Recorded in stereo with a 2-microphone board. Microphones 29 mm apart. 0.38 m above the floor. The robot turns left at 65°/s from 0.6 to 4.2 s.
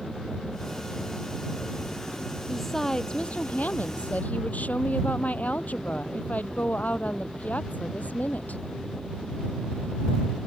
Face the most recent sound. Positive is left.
turn(degrees=75)